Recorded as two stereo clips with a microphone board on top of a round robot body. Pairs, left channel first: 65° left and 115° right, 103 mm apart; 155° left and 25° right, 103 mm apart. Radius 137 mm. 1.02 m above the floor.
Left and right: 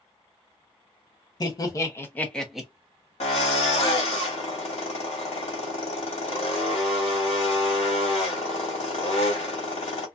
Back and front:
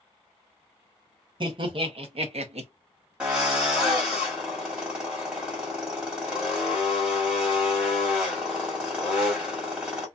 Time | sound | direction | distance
1.4 | laughter | 15° left | 1.2 m
3.2 | a drill | 55° left | 1.4 m